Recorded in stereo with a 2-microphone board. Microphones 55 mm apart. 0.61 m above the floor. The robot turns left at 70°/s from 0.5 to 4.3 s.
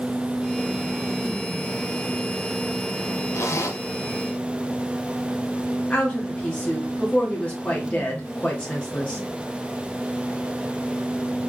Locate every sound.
3.3 s a zipper: 110° left, 0.9 m; by 3.8 s 80° left, 0.9 m
5.9 s a woman speaking: 25° left (ahead or behind), 0.9 m